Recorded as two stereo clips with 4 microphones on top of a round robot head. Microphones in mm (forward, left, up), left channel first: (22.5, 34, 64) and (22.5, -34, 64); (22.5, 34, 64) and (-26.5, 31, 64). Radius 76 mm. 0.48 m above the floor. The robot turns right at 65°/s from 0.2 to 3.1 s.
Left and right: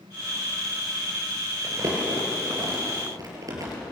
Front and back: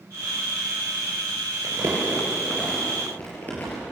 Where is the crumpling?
155° right, 6.5 m; by 3.8 s 60° right, 6.5 m.